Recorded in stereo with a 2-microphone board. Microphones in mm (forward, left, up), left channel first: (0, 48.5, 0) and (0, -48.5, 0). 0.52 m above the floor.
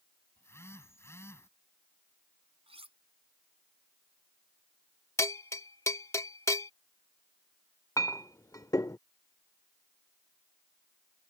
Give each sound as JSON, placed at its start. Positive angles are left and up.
{"t": 0.4, "sound": "a phone buzzing", "side_deg": 25}
{"t": 2.7, "sound": "cutlery clinking", "side_deg": -80}
{"t": 5.2, "sound": "a bell", "side_deg": 30}
{"t": 8.0, "sound": "a clink", "side_deg": 35}